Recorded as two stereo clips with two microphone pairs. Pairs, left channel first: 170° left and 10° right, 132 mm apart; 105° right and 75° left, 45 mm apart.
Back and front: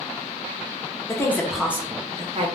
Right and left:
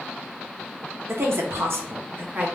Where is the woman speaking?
105° left, 0.7 m; by 2.6 s 25° left, 0.8 m.